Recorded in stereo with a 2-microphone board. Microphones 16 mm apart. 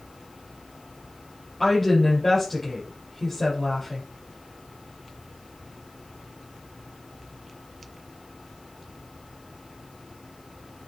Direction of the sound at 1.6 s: 15° left (ahead or behind).